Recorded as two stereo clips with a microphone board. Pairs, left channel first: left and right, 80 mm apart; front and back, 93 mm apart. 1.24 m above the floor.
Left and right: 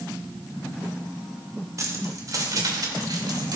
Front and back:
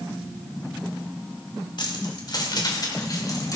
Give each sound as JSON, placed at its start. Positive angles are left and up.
{"t": 1.8, "sound": "keys jangling", "azimuth_deg": -40, "distance_m": 2.5}